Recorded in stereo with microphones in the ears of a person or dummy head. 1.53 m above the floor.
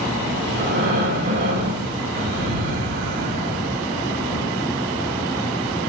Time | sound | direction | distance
0.5 | breathing | 45° right (ahead or behind) | 1.5 m